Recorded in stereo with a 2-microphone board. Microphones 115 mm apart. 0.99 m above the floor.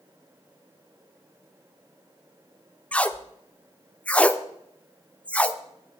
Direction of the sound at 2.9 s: 10° left (ahead or behind).